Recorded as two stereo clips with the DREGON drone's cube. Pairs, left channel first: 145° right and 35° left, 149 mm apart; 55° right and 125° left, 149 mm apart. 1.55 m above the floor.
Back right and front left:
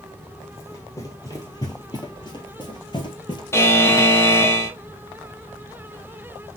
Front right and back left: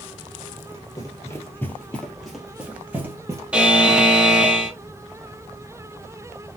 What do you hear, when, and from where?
0.6 s running footsteps: 90° right, 2.0 m; by 3.4 s straight behind, 2.0 m
3.5 s a buzzer: 165° right, 1.0 m